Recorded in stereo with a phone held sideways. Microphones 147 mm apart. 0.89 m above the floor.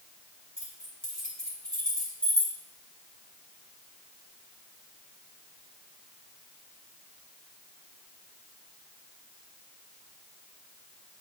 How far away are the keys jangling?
About 2.5 m.